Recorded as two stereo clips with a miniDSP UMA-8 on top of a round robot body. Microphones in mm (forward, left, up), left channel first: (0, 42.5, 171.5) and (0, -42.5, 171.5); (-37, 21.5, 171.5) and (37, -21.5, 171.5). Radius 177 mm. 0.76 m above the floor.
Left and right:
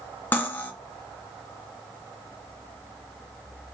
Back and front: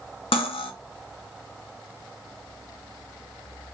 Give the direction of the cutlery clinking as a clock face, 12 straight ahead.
7 o'clock.